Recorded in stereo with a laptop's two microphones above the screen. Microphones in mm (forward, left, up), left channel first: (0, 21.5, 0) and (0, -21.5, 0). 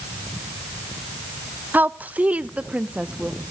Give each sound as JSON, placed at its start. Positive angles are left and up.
{"t": 1.7, "sound": "a woman speaking", "side_deg": -40, "distance_m": 0.6}